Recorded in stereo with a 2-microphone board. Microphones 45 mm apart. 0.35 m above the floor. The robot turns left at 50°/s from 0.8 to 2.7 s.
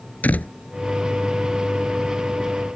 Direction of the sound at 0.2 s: 35° left (ahead or behind).